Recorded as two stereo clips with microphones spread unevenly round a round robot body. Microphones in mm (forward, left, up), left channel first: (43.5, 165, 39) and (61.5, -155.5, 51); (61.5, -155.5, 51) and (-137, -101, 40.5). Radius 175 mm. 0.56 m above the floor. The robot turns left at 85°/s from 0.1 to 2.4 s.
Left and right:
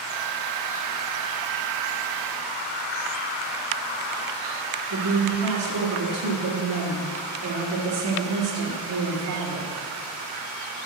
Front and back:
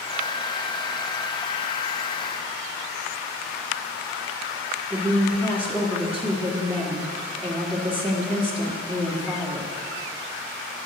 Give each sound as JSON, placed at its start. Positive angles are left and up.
{"t": 4.9, "sound": "a woman speaking", "azimuth_deg": -110, "distance_m": 1.9}